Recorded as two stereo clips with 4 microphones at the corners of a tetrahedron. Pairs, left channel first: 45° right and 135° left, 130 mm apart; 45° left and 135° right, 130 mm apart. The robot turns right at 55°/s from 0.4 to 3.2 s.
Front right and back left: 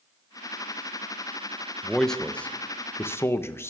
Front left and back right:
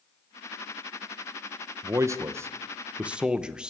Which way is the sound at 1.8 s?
140° right.